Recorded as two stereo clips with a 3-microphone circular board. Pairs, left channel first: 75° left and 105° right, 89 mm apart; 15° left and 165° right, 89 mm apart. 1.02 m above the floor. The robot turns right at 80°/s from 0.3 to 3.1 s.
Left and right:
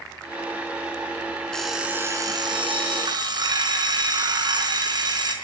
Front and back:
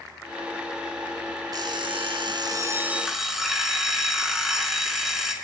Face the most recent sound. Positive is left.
turn(degrees=-80)